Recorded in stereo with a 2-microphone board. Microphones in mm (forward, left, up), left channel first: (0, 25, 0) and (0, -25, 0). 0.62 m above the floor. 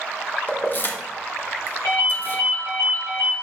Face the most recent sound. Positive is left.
turn(degrees=80)